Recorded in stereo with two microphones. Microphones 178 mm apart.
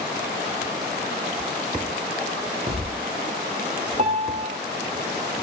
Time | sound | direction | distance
2.7 | a thud | 35° right (ahead or behind) | 5 m
4.0 | a piano | 40° right (ahead or behind) | 1.9 m